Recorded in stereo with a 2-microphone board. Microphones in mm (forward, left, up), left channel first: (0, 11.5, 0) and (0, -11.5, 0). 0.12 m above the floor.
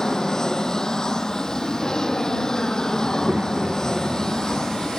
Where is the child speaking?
75° right (ahead or behind).